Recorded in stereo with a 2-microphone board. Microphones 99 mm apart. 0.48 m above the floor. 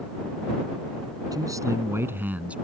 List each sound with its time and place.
1.3 s a man speaking: 35° right (ahead or behind); by 2.5 s 10° right (ahead or behind)